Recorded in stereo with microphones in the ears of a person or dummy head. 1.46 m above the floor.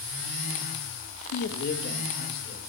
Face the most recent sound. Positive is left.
turn(degrees=50)  # may be behind; listen again after turning